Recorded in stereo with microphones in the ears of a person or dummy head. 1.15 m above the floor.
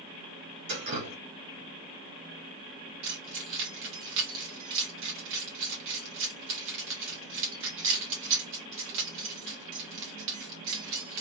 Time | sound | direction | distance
0.7 | dripping | 60° right (ahead or behind) | 1.6 m
3.0 | keys jangling | 65° right (ahead or behind) | 1.2 m